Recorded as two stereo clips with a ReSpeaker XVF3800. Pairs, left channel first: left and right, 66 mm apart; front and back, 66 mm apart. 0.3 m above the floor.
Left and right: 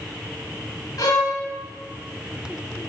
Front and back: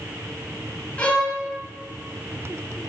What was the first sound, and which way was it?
A violin, 70° left.